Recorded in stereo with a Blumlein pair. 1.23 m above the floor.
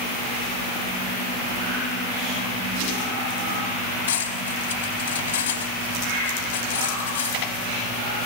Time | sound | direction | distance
4.1 | cutlery clinking | 60° left | 5 m